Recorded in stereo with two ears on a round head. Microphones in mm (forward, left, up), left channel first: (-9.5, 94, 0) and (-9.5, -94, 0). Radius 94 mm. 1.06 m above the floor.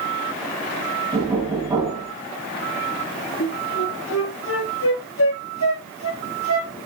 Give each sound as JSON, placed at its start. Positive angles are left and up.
{"t": 1.1, "sound": "knocking", "side_deg": -20, "distance_m": 6.5}
{"t": 3.4, "sound": "a flute", "side_deg": 70, "distance_m": 5.5}